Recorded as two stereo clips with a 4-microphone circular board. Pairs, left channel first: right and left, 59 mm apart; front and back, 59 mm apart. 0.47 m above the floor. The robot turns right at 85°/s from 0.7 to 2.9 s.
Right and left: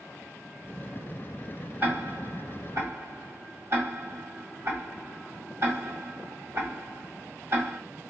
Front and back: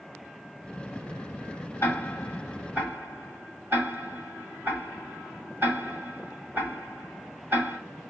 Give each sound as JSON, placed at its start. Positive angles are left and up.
{"t": 1.8, "sound": "ticking", "azimuth_deg": 40, "distance_m": 1.6}